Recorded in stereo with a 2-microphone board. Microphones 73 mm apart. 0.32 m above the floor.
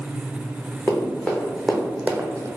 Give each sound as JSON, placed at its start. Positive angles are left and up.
{"t": 0.9, "sound": "running footsteps", "side_deg": 30, "distance_m": 1.7}